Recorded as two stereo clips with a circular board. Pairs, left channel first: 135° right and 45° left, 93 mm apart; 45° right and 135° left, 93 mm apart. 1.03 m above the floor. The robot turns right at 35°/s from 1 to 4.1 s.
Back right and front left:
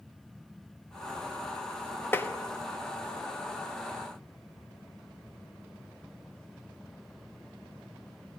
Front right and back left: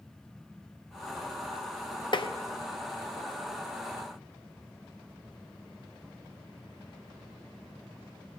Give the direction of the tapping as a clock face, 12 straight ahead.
2 o'clock.